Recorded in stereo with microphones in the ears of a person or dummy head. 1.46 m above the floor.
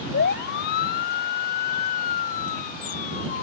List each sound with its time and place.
0.1 s a siren: 55° left (ahead or behind); by 3.4 s 40° left (ahead or behind)